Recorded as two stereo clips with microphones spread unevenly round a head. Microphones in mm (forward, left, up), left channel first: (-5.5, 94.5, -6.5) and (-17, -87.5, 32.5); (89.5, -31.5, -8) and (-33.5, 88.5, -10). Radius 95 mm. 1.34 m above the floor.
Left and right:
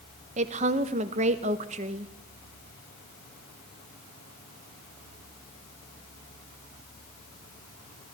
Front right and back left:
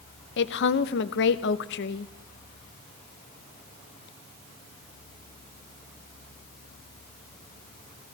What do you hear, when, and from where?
0.4 s a woman speaking: 45° right, 0.8 m